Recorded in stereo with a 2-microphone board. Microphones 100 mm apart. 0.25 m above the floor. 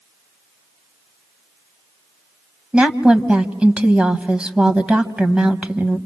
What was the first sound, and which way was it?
A woman speaking, 10° right (ahead or behind).